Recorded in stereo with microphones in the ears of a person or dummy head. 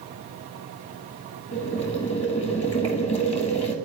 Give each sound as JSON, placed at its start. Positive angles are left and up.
{"t": 1.5, "sound": "boiling", "side_deg": 35, "distance_m": 1.4}